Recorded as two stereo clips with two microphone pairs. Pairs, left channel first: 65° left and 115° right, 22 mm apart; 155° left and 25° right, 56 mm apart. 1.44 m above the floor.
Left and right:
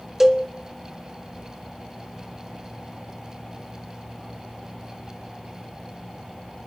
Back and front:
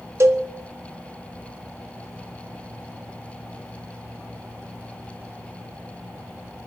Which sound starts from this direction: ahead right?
A cowbell, at 0.2 s.